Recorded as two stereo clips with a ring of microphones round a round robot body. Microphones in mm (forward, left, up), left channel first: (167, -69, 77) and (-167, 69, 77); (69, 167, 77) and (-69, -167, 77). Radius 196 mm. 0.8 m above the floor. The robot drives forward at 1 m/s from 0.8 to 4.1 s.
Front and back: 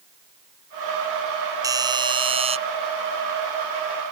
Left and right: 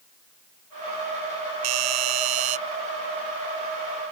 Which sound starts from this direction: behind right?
A doorbell, at 1.6 s.